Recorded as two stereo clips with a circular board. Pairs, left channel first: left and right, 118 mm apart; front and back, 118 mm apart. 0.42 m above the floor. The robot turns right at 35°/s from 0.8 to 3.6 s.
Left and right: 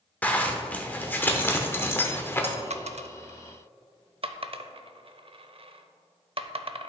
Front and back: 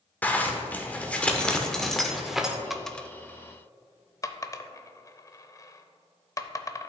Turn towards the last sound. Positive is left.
turn(degrees=-60)